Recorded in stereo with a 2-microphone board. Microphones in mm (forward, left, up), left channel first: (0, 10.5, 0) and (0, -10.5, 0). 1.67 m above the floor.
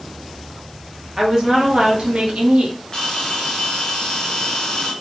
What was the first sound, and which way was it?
A woman speaking, 25° right (ahead or behind).